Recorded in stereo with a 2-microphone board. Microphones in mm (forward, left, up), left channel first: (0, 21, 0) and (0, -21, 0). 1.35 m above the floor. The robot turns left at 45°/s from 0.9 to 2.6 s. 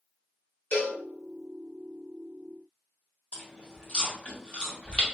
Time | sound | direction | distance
0.7 | a cowbell | 50° left (ahead or behind) | 0.8 m
3.3 | chewing | 30° left (ahead or behind) | 1.2 m